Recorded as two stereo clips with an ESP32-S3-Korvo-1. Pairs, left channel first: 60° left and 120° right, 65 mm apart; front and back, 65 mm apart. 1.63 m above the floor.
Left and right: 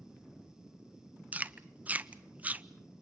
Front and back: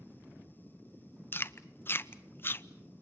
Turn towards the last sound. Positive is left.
turn(degrees=-55)